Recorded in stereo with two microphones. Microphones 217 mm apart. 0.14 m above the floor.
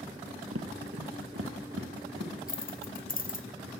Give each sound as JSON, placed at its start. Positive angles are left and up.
{"t": 0.5, "sound": "footsteps", "side_deg": -85, "distance_m": 1.4}
{"t": 2.5, "sound": "keys jangling", "side_deg": 40, "distance_m": 1.0}